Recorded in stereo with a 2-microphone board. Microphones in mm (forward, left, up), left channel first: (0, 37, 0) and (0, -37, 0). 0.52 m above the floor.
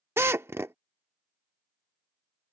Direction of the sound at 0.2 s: 40° right (ahead or behind).